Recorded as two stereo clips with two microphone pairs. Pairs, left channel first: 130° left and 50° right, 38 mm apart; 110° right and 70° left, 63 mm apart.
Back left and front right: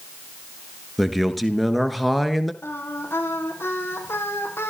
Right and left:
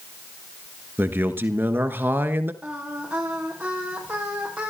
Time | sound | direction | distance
1.0 | a man speaking | 40° left | 1.5 m
2.6 | singing | 140° left | 5.5 m